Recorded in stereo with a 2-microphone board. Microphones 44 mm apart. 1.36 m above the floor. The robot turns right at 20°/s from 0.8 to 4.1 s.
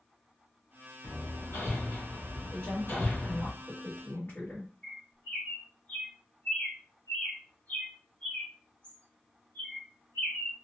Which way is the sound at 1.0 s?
90° left.